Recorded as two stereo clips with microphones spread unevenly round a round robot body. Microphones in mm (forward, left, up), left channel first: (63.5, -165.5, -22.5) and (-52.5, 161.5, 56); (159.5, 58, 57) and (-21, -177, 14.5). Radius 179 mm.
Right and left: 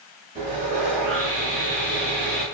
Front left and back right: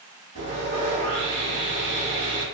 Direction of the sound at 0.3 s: 165° left.